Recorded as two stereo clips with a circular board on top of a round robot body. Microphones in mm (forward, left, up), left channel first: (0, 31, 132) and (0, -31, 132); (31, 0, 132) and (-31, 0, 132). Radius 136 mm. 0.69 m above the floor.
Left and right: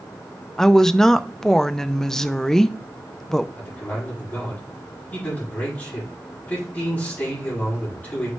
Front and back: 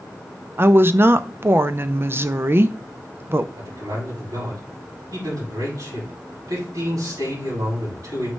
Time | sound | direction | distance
0.6 | a woman speaking | 170° left | 0.7 m
3.6 | a man speaking | 155° left | 6.5 m